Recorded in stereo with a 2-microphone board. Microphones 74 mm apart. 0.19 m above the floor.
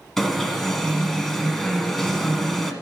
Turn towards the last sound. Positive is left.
turn(degrees=5)  # may be behind; listen again after turning